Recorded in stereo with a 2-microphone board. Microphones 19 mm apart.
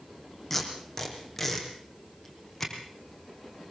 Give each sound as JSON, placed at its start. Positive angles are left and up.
{"t": 0.5, "sound": "tape being pulled", "side_deg": 15, "distance_m": 4.5}